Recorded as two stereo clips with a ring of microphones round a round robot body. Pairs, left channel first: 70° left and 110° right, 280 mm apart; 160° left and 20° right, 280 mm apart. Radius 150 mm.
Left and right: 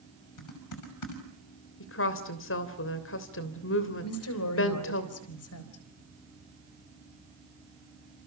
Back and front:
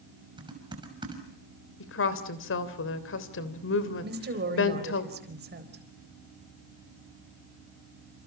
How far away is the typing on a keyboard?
About 6 m.